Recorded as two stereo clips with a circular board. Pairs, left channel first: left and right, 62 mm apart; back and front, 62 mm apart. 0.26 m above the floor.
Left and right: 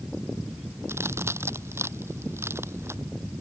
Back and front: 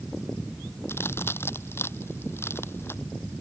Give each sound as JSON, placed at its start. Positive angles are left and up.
{"t": 0.9, "sound": "a crack", "azimuth_deg": -130}